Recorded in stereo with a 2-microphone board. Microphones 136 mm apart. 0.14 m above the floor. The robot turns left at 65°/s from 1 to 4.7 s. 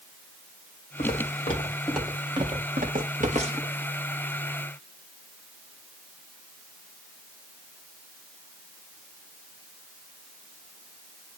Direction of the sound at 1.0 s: 75° left (ahead or behind).